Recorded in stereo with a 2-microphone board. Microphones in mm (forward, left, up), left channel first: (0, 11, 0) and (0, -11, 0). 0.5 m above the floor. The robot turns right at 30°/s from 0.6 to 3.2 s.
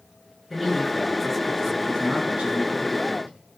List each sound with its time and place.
0.5 s a man speaking: 170° right, 6 m; by 3.3 s 90° right, 6 m